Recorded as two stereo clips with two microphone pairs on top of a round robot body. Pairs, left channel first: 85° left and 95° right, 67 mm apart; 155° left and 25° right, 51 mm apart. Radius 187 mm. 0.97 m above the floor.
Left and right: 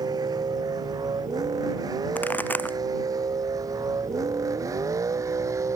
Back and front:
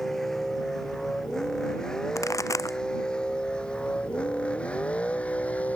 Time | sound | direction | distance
0.0 | a vehicle | 120° right | ?
2.1 | a pop | 150° left | ?